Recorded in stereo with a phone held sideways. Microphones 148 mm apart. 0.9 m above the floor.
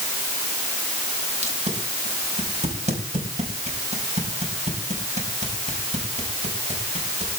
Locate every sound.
1.4 s tape being pulled: 50° right (ahead or behind), 4.5 m